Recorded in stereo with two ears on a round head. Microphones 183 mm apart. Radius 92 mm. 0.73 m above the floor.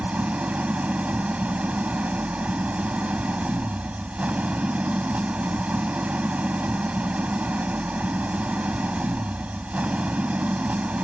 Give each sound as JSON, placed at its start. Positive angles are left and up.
{"t": 0.0, "sound": "an engine running", "side_deg": -5}